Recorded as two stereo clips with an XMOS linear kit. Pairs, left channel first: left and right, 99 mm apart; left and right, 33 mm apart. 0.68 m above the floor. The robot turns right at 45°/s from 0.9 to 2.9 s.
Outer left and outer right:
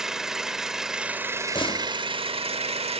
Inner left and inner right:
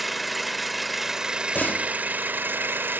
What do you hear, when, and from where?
0.0 s an engine running: 175° right, 0.9 m; by 3.0 s 85° right, 0.9 m
1.6 s a door slam: 55° left (ahead or behind), 1.1 m; by 1.9 s 45° left (ahead or behind), 1.1 m